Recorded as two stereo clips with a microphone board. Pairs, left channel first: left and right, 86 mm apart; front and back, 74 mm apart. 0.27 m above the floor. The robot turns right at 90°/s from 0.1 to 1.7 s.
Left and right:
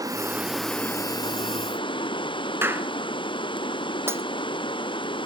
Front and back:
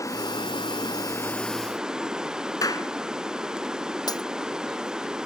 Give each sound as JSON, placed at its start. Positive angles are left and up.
{"t": 0.0, "sound": "running water", "azimuth_deg": -45}
{"t": 2.6, "sound": "a clap", "azimuth_deg": -30}
{"t": 4.1, "sound": "breaking glass", "azimuth_deg": -30}